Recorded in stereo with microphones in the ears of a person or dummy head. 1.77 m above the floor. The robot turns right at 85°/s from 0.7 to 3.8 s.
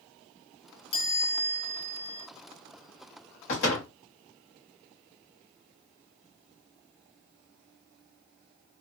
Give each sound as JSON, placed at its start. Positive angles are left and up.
{"t": 0.9, "sound": "a chime", "azimuth_deg": 100, "distance_m": 1.0}
{"t": 3.5, "sound": "a door slam", "side_deg": 45, "distance_m": 0.8}